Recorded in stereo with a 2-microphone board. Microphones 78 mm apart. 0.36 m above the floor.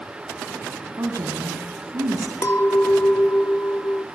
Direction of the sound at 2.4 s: 35° left (ahead or behind).